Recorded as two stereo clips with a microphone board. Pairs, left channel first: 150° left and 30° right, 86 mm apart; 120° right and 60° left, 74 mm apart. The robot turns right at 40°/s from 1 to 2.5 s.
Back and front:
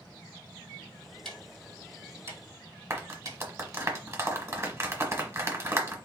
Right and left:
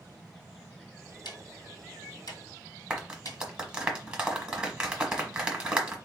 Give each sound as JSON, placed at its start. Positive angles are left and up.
{"t": 1.2, "sound": "ticking", "azimuth_deg": -125, "distance_m": 1.6}
{"t": 2.9, "sound": "a clap", "azimuth_deg": -10, "distance_m": 1.2}